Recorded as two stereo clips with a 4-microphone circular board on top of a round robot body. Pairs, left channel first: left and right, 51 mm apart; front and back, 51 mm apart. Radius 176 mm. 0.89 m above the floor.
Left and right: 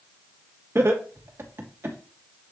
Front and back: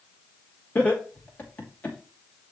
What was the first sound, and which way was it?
Laughter, 60° right.